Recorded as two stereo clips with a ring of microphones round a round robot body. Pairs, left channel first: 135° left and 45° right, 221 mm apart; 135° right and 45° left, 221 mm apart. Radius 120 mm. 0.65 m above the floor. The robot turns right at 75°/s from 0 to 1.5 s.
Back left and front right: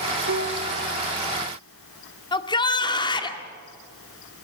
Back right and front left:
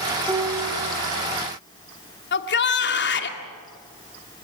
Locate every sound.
0.3 s a piano: 35° right, 1.6 m; by 0.9 s 10° left, 1.6 m
2.3 s a shout: 160° right, 1.9 m